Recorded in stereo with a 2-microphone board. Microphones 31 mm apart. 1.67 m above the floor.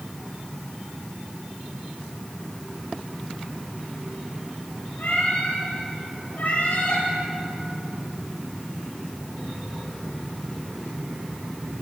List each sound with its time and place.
5.0 s a cat meowing: 65° left (ahead or behind), 9.5 m; by 7.0 s 60° left (ahead or behind), 10.5 m